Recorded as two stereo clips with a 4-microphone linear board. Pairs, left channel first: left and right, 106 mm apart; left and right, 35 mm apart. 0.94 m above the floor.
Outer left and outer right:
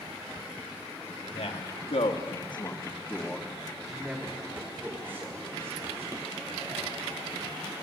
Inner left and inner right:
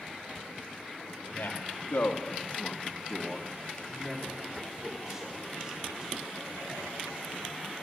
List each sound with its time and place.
1.3 s a man speaking: 75° left (ahead or behind), 1.7 m; by 6.7 s 25° right (ahead or behind), 4.5 m